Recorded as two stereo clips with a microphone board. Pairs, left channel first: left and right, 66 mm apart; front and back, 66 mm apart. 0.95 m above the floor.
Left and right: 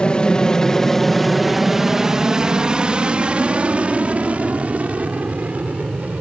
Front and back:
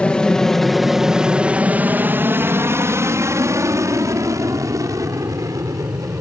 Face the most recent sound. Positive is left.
turn(degrees=-155)